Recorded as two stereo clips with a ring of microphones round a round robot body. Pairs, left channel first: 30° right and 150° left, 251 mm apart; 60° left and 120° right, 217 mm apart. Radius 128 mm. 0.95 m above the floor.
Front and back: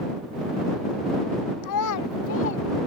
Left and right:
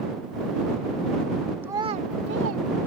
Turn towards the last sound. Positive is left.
turn(degrees=-85)